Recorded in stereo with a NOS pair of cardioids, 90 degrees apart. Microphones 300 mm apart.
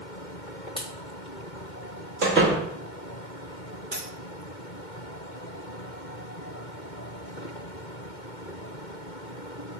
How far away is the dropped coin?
About 1.9 m.